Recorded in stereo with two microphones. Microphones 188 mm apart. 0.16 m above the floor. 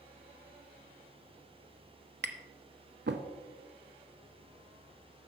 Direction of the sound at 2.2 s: 65° right (ahead or behind).